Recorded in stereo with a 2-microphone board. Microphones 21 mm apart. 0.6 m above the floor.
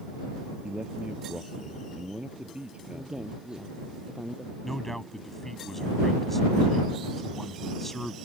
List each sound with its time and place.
0.6 s a man speaking: 60° right (ahead or behind)
2.9 s a man speaking: 40° right (ahead or behind)
4.6 s a man speaking: 10° left (ahead or behind)